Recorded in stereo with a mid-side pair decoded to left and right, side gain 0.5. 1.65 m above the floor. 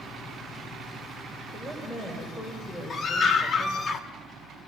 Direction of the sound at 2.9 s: 40° left.